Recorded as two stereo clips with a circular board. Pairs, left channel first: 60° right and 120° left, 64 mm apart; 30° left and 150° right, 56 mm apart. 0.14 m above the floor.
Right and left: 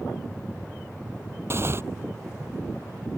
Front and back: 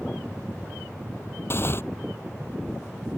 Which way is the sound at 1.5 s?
70° left.